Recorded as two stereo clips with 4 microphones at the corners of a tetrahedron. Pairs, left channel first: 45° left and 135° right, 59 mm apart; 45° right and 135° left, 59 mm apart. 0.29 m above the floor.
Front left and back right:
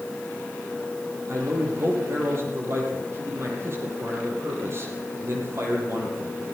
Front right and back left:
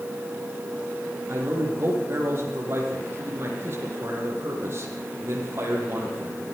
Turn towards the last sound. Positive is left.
turn(degrees=180)